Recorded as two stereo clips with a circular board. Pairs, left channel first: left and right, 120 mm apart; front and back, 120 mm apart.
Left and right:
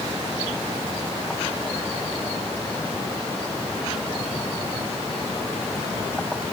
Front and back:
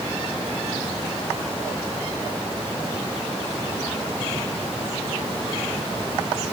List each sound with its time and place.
Only background noise.